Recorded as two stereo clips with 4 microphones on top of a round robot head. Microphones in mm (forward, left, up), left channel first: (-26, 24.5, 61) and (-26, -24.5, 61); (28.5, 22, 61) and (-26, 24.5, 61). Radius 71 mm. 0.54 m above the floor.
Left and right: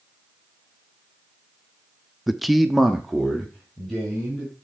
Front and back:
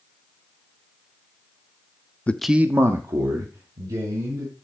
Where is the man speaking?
5° right, 0.6 m; by 4.5 s straight behind, 3 m.